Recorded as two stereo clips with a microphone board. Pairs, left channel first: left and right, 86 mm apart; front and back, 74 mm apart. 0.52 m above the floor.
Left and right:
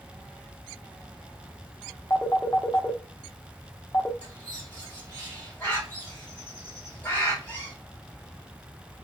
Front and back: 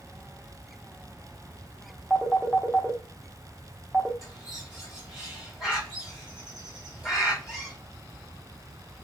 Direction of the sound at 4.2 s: 110° left.